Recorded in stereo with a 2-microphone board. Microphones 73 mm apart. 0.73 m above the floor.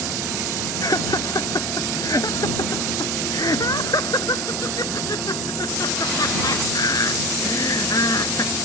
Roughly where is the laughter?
Left.